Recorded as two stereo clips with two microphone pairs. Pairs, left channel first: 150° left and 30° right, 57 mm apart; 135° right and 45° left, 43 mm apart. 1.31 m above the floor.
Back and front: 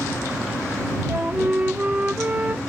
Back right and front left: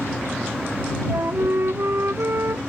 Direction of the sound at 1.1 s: 30° left.